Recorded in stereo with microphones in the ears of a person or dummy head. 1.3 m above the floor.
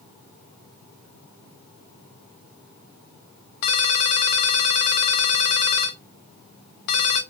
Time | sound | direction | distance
3.6 | a ringtone | 55° left (ahead or behind) | 0.7 m